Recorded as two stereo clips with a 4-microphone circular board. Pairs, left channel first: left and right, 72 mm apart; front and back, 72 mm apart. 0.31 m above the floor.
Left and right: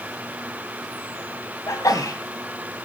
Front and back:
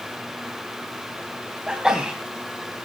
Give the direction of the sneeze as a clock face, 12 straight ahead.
9 o'clock.